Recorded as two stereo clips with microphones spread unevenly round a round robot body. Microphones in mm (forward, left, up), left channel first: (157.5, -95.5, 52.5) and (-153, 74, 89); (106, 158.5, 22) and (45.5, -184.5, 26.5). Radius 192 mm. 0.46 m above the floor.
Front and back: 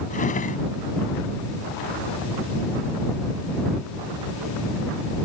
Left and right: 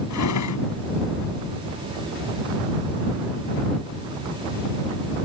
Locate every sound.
0.1 s a drawer: 40° left